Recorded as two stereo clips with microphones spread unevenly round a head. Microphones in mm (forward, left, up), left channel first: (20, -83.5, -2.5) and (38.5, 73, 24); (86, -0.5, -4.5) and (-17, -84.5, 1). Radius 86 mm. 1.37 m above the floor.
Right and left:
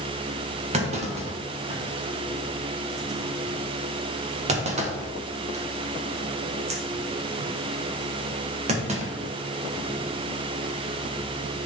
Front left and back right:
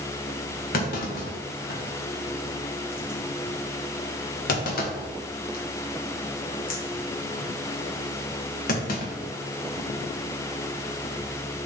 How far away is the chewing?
I don't hear chewing.